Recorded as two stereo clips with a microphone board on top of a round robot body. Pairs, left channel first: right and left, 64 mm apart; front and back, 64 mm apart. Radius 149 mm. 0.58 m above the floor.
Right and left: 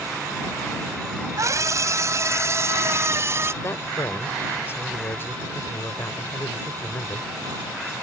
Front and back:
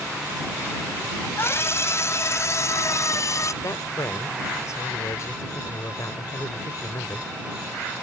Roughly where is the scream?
Ahead left.